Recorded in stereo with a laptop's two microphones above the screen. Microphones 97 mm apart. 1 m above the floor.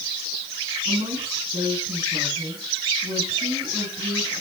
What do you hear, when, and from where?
0.8 s a woman speaking: 65° right (ahead or behind), 10 m